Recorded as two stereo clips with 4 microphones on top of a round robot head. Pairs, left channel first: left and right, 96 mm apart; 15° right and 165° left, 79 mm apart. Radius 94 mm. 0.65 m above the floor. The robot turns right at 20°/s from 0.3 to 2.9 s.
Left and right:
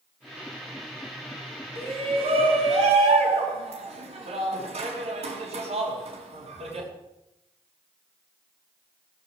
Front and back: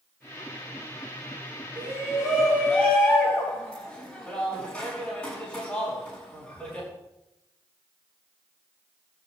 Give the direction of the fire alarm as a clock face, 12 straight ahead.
No fire alarm in this recording.